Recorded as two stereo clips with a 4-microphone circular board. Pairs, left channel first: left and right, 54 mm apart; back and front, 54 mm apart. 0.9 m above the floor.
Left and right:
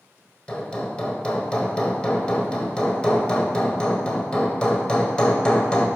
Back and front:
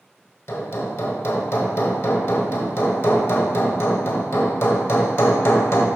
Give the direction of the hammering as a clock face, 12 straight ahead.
7 o'clock.